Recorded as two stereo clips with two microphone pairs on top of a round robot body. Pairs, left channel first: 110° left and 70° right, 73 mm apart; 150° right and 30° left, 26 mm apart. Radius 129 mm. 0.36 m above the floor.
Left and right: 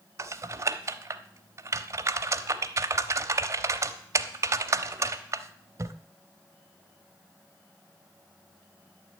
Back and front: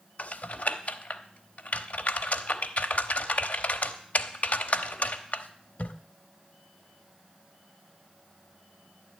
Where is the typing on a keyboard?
125° right, 0.8 m.